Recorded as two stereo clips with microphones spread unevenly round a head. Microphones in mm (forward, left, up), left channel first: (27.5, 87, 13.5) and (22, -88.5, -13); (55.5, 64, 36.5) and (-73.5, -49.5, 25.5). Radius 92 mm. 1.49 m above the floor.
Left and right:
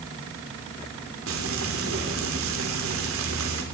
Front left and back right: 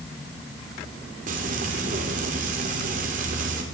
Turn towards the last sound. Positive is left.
turn(degrees=-90)